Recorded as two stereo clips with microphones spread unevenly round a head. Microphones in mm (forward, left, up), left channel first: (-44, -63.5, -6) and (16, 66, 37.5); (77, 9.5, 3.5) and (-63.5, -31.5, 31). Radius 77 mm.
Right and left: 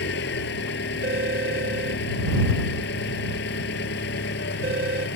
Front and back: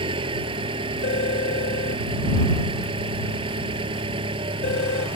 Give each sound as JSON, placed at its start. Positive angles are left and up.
{"t": 0.0, "sound": "an engine running", "azimuth_deg": -105}
{"t": 1.0, "sound": "a phone ringing", "azimuth_deg": 45}